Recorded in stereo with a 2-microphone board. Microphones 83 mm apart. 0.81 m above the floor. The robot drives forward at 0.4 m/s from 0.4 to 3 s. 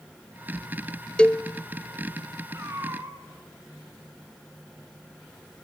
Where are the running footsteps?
I don't hear running footsteps.